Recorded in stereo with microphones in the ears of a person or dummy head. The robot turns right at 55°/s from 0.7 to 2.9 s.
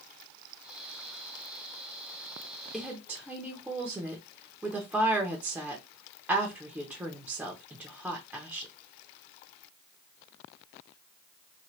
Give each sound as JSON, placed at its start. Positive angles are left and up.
{"t": 2.7, "sound": "a woman speaking", "side_deg": 0, "distance_m": 0.6}